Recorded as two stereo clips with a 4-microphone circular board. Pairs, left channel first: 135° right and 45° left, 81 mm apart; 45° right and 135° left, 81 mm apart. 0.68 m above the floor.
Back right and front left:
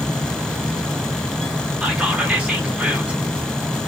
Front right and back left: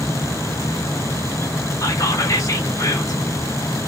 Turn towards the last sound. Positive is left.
turn(degrees=-25)